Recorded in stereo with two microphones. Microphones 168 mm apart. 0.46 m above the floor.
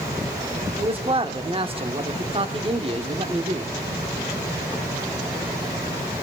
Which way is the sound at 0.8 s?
35° right (ahead or behind).